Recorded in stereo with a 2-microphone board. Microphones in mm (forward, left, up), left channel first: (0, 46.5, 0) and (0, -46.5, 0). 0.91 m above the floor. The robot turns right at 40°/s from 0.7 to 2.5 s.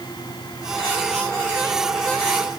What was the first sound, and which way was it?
Only background noise.